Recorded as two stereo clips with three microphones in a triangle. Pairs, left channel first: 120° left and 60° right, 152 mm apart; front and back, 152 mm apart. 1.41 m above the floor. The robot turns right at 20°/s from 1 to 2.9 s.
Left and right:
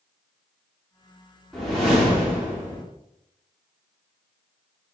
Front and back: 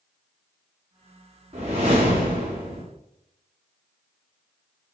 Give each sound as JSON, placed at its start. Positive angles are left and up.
{"t": 1.5, "sound": "a whoosh", "azimuth_deg": -155, "distance_m": 1.3}